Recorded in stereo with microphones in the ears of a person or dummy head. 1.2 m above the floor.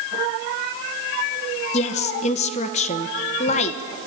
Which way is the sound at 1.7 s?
35° left (ahead or behind).